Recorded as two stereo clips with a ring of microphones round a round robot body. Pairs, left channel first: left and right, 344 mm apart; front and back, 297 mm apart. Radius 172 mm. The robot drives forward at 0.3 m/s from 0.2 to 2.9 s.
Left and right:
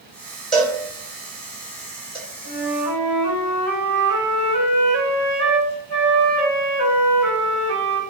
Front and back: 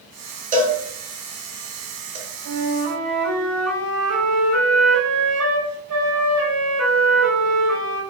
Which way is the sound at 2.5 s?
150° left.